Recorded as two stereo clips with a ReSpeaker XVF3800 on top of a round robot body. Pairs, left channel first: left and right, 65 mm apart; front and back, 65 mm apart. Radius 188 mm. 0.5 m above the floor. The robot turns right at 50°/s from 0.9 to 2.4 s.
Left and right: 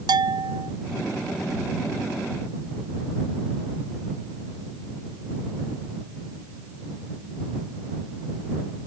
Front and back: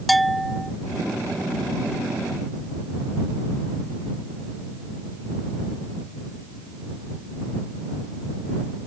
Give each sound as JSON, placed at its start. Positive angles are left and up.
{"t": 0.1, "sound": "a bell", "azimuth_deg": -90}